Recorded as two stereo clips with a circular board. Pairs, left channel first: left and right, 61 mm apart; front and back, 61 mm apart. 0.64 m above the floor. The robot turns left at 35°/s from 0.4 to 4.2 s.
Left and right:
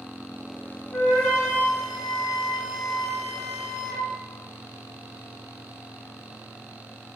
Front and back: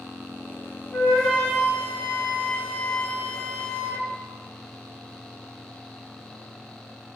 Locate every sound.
0.9 s a flute: 60° left, 1.0 m; by 4.1 s 50° right, 1.0 m